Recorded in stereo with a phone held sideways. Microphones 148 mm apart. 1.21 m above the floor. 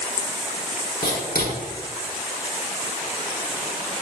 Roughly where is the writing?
Left.